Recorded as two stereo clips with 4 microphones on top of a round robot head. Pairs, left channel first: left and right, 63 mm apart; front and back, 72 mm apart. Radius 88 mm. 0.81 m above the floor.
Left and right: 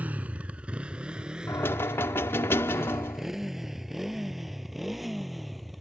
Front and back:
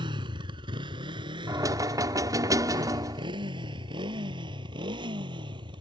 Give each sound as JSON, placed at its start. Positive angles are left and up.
{"t": 0.0, "sound": "a motorcycle", "azimuth_deg": -160}
{"t": 1.5, "sound": "knocking", "azimuth_deg": 145}